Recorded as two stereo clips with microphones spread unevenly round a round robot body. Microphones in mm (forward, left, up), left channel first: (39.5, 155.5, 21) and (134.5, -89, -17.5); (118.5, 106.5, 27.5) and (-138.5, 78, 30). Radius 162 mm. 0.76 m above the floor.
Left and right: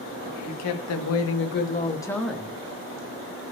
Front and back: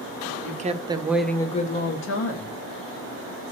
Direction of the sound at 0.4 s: 130° left.